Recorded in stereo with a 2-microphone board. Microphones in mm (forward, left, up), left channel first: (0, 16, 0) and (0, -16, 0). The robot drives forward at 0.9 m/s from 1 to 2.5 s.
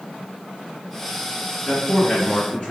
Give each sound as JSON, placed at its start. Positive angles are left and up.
{"t": 1.7, "sound": "a man speaking", "side_deg": 20, "distance_m": 1.8}